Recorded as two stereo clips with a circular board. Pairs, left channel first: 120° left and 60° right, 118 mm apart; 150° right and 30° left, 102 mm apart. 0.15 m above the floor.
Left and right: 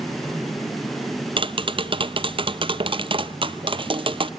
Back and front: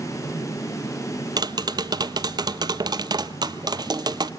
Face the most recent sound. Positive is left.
turn(degrees=-20)